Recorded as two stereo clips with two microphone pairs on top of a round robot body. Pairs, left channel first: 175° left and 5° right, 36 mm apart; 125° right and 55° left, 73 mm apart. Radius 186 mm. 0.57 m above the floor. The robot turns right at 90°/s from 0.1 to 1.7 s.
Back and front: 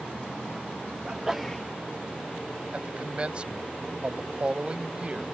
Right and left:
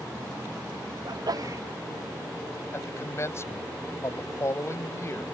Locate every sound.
1.1 s a sneeze: 50° left; by 1.6 s 105° left
2.7 s a man speaking: 65° right